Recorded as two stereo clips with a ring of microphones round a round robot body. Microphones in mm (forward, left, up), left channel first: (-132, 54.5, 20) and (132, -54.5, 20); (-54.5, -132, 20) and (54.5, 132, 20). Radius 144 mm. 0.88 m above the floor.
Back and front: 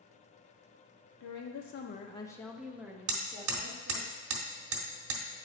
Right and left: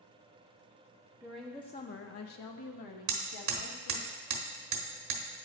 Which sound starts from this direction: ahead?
Hammering, at 3.1 s.